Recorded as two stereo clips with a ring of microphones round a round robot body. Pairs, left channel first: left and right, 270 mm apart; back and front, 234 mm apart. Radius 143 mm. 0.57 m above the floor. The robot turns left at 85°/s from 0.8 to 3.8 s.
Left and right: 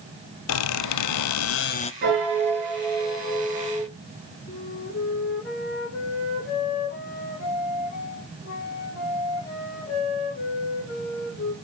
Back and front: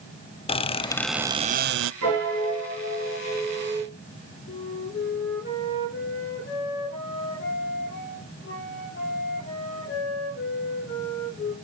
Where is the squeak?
115° left, 0.5 m; by 1.9 s 20° left, 0.5 m.